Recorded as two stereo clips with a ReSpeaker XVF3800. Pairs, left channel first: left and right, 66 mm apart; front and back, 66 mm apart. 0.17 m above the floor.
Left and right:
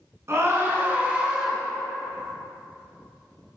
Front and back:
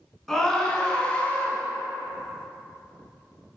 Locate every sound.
0.3 s a scream: 85° right, 1.5 m; by 1.6 s 5° right, 1.2 m